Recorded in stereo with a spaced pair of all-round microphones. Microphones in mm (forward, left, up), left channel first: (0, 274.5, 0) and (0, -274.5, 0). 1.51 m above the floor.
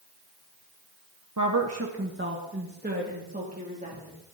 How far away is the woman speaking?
About 1.5 m.